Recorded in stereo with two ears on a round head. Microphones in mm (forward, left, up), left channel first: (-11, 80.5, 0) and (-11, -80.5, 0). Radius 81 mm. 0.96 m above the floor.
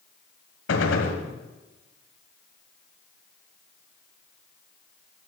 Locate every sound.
0.7 s a gunshot: 70° left (ahead or behind), 1.8 m